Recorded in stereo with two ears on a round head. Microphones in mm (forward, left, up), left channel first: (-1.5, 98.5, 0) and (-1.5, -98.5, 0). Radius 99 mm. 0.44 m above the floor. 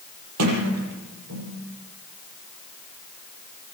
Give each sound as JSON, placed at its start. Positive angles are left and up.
{"t": 0.4, "sound": "a sliding door", "side_deg": -75, "distance_m": 8.5}